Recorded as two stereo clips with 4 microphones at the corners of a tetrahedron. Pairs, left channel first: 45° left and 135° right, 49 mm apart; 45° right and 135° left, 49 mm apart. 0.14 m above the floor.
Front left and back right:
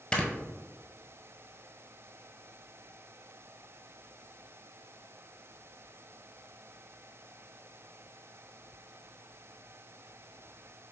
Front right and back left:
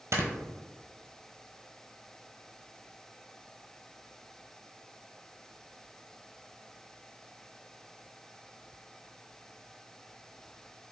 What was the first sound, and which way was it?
Snoring, 115° left.